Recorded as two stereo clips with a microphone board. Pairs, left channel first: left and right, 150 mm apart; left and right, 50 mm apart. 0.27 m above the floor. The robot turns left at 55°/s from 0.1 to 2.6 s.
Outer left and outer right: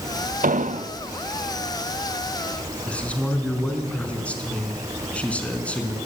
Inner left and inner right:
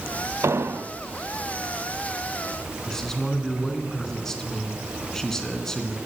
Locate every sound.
0.4 s an explosion: 65° right (ahead or behind), 0.6 m; by 0.9 s 45° right (ahead or behind), 0.6 m
2.9 s a man speaking: 10° left (ahead or behind), 3.5 m